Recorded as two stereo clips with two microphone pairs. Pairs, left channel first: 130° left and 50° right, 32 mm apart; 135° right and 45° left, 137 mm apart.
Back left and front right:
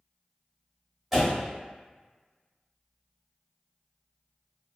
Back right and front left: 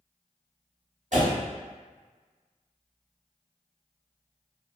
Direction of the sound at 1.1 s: 40° left.